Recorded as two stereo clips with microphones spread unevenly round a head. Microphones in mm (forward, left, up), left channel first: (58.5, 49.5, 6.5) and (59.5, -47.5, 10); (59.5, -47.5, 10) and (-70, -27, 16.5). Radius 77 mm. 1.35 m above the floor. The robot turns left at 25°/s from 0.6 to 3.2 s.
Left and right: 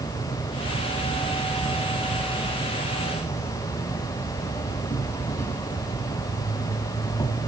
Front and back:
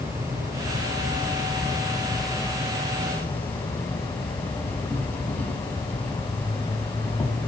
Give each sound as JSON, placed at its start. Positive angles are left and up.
{"t": 0.0, "sound": "an insect", "azimuth_deg": 125, "distance_m": 1.3}